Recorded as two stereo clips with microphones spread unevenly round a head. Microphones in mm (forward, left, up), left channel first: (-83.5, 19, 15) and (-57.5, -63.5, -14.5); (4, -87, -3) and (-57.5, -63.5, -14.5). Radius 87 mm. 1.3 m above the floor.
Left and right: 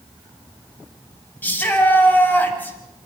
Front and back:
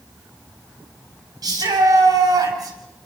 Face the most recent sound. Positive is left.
turn(degrees=175)